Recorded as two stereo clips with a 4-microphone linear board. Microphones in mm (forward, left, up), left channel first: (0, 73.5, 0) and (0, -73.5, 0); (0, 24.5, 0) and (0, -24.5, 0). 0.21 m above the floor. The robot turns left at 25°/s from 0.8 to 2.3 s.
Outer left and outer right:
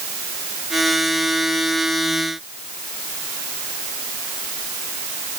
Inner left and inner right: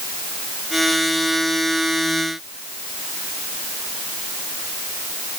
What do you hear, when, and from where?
Only background noise.